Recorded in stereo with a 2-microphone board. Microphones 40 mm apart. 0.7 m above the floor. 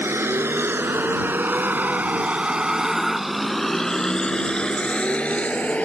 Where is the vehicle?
80° right; by 5.8 s 35° left (ahead or behind).